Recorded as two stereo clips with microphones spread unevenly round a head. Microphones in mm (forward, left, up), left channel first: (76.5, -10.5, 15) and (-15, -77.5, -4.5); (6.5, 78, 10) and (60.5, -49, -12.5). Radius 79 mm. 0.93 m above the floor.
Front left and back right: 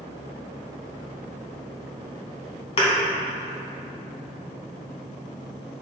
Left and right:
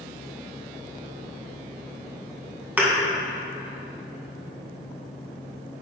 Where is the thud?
15° left, 2.5 m.